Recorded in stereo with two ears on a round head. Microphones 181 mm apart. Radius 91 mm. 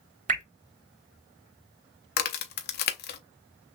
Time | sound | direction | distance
0.3 | dripping | 35° right (ahead or behind) | 1.0 m
2.2 | a crack | 45° left (ahead or behind) | 0.6 m